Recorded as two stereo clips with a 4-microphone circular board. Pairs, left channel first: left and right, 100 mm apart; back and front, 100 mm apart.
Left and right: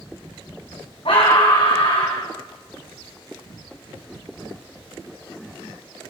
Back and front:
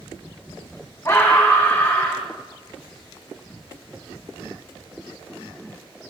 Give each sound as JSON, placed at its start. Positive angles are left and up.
{"t": 1.1, "sound": "a scream", "azimuth_deg": 115, "distance_m": 5.0}